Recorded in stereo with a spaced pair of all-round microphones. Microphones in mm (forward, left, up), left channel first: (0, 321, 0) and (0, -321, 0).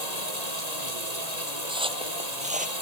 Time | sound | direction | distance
0.0 | running water | 80° left | ?
1.7 | footsteps | 5° right (ahead or behind) | ?